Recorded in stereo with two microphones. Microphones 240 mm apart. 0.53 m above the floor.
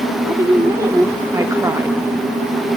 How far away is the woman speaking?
About 0.9 m.